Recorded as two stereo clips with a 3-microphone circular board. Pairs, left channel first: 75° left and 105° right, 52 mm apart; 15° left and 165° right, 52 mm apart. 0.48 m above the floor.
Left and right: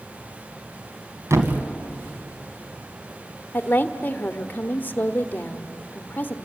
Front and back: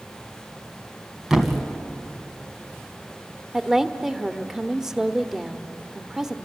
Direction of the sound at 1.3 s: 85° right.